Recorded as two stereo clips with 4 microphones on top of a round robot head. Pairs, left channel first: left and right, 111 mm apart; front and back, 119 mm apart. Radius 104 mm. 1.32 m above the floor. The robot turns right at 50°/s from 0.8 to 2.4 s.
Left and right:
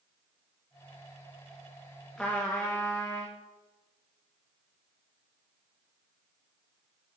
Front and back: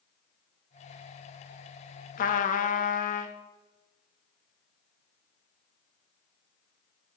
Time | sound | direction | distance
2.2 | a trumpet | 5° left | 0.8 m